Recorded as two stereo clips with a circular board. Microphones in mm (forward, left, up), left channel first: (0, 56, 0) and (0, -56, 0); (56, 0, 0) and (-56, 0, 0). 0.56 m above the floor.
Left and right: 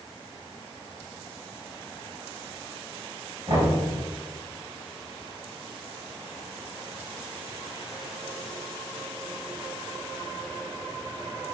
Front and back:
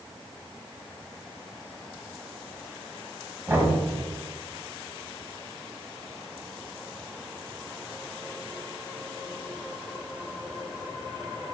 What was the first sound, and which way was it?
Knocking, 115° right.